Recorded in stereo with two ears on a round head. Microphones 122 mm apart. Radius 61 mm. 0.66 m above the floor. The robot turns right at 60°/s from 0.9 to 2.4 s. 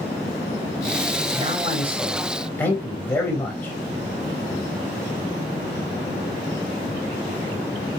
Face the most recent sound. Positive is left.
turn(degrees=15)